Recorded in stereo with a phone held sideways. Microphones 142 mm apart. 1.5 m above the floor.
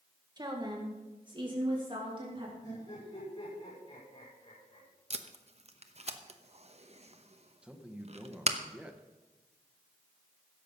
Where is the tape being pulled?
50° right (ahead or behind), 0.9 m.